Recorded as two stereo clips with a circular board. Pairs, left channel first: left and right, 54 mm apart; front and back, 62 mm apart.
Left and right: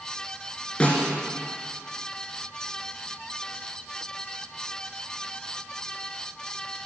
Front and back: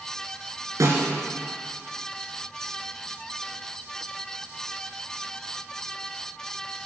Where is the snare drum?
160° left, 3 m.